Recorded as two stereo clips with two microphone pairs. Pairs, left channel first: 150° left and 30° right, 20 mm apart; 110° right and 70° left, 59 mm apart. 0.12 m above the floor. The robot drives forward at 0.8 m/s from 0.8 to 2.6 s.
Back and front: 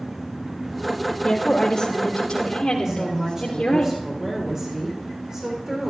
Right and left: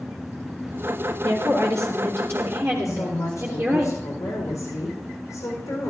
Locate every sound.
1.2 s a woman speaking: 85° left, 2.5 m; by 3.9 s 115° left, 2.5 m
2.9 s a woman speaking: 80° right, 6.5 m